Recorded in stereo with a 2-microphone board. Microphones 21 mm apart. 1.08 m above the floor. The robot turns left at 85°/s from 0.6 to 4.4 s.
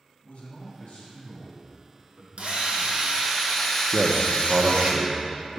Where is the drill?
60° right, 1.4 m; by 4.9 s 125° left, 1.4 m.